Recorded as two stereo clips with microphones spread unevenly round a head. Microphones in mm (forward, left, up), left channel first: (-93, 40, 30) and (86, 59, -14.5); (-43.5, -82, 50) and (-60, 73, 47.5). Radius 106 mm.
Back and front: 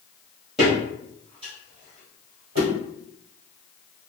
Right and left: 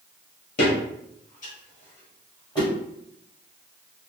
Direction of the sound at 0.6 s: 95° right.